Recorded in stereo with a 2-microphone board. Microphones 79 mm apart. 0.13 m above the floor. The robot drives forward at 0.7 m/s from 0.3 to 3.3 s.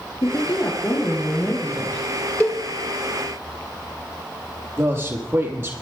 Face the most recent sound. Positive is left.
turn(degrees=-30)  # may be behind; listen again after turning